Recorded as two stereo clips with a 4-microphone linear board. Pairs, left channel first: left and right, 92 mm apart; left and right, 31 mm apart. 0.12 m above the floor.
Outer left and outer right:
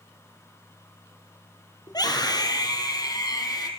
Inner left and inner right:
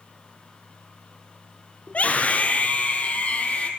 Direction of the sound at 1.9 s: 50° left (ahead or behind).